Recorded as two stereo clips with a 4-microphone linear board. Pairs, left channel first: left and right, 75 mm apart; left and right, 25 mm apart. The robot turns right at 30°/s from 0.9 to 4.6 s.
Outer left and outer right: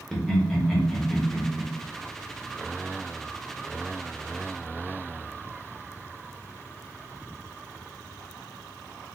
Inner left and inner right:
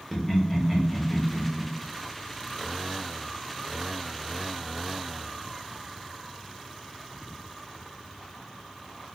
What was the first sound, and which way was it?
Laughter, 5° left (ahead or behind).